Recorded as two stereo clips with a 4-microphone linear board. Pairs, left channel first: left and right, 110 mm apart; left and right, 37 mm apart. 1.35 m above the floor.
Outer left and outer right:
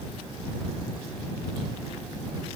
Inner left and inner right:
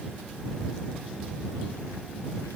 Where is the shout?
No shout in this recording.